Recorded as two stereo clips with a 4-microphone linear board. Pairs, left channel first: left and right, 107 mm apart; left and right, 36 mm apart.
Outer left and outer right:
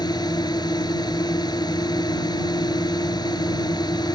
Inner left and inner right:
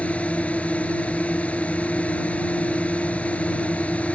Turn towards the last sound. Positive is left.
turn(degrees=40)  # may be behind; listen again after turning